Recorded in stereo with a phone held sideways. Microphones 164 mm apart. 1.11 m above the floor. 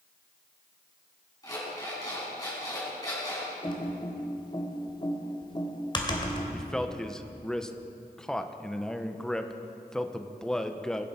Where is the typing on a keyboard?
30° left (ahead or behind), 2.0 m.